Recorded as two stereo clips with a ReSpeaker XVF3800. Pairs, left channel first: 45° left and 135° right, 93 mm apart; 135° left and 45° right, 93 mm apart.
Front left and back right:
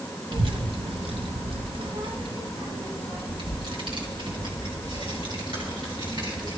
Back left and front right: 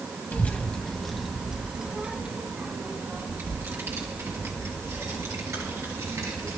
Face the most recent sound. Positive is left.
turn(degrees=-95)